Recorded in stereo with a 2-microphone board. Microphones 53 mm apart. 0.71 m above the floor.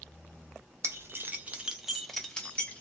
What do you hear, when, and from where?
0.8 s keys jangling: 55° right (ahead or behind), 0.7 m; by 2.8 s 25° left (ahead or behind), 0.9 m